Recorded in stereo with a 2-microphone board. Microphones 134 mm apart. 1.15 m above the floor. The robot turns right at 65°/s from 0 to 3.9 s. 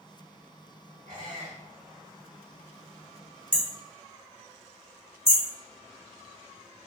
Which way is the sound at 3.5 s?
5° left (ahead or behind).